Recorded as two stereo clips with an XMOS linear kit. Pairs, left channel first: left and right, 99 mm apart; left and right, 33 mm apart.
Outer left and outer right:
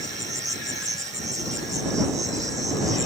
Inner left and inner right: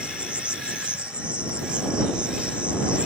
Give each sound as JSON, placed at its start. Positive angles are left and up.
{"t": 0.0, "sound": "an insect", "side_deg": -35}